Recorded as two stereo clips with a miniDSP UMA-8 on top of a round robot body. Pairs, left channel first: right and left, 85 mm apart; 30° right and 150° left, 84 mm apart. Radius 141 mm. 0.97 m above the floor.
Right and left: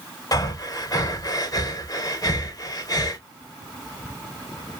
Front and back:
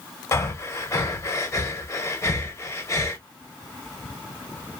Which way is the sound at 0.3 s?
70° right.